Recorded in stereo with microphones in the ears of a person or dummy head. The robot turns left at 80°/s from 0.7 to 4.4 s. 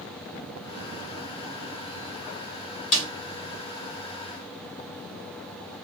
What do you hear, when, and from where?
2.9 s a snare drum: 35° left (ahead or behind), 1.7 m; by 3.1 s 20° left (ahead or behind), 1.7 m